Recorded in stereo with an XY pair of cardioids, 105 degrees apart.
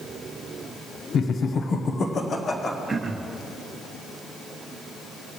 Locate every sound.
1.1 s laughter: 60° left, 0.7 m; by 2.8 s 35° left, 1.4 m
2.9 s throat clearing: 25° right, 1.0 m